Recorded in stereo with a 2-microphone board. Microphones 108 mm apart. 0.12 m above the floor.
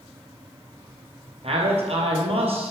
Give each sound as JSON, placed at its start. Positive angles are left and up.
{"t": 1.4, "sound": "a man speaking", "side_deg": -60, "distance_m": 3.0}